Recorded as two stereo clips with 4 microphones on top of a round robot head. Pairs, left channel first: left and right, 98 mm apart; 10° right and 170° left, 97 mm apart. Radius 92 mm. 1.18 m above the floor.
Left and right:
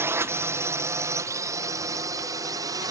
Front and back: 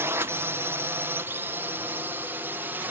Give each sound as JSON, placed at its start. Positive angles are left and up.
{"t": 0.0, "sound": "a drone", "azimuth_deg": -140}